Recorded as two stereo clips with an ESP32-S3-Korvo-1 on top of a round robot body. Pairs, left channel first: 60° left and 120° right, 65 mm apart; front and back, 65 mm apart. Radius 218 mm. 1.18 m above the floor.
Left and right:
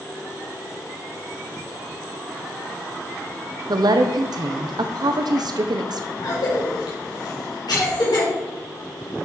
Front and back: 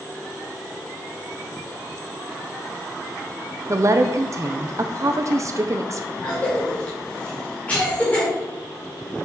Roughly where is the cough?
Left.